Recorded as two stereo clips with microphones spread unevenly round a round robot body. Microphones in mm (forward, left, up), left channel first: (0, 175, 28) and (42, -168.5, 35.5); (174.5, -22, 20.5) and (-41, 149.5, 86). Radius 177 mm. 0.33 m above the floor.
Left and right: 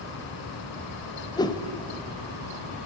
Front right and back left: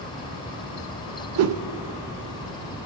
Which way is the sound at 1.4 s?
170° left.